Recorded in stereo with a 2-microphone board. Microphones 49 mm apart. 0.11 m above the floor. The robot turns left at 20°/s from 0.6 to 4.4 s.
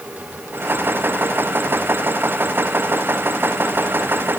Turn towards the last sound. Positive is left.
No sound to turn to.